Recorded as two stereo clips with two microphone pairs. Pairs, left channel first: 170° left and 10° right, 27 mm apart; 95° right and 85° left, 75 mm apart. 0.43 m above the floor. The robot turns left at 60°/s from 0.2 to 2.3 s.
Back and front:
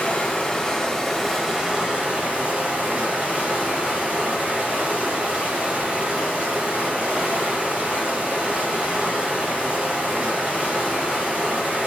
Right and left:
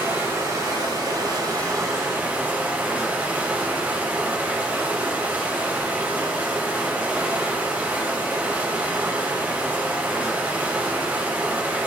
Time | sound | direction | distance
0.0 | running water | 140° left | 2 m